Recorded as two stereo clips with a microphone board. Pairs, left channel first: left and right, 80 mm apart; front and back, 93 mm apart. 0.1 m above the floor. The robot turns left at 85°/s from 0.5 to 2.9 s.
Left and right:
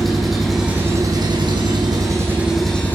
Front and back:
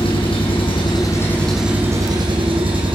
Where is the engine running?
Straight ahead, 3.5 m; by 3.0 s 155° left, 3.5 m.